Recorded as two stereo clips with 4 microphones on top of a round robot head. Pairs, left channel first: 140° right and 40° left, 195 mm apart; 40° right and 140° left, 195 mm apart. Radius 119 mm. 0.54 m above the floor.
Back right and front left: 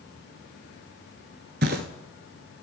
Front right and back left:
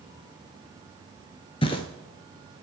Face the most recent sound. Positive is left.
turn(degrees=15)